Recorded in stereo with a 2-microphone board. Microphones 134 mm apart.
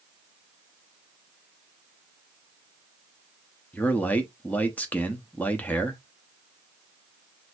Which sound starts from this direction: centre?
A man speaking, at 3.7 s.